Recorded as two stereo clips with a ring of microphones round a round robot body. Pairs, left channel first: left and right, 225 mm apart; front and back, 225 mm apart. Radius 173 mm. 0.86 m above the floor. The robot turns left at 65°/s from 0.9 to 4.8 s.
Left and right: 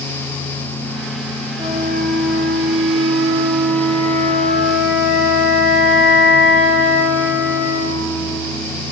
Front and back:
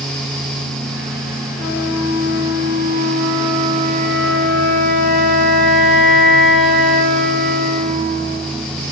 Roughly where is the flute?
Ahead.